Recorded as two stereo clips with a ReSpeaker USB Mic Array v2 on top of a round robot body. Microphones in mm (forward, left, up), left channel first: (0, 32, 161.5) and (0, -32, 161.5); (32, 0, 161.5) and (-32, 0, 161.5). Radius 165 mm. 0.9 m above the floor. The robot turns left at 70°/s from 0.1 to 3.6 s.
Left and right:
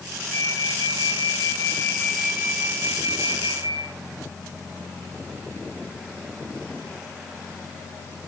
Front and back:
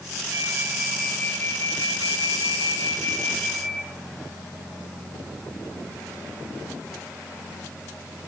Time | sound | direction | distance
0.3 | a flute | 135° left | 3.5 m